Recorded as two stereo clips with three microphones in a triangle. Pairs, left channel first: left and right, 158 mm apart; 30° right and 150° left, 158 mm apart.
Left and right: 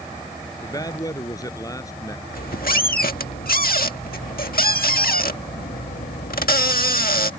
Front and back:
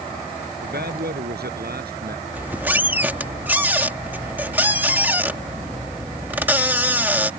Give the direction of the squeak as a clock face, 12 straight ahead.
10 o'clock.